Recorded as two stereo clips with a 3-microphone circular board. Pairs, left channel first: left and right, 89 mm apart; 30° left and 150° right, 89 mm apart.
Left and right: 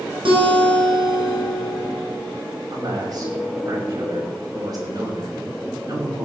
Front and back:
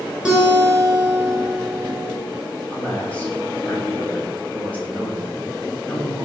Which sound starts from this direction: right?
A guitar, at 0.2 s.